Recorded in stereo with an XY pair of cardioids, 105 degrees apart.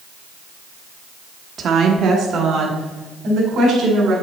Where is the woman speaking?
55° right, 1.1 m; by 4.1 s 65° right, 3.5 m.